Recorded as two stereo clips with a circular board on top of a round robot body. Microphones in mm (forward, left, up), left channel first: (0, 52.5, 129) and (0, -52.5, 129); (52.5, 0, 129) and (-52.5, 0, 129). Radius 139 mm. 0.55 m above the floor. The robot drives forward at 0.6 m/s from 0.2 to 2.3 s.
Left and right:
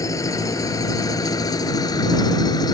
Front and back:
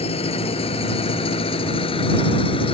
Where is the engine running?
30° left; by 2.8 s 35° left.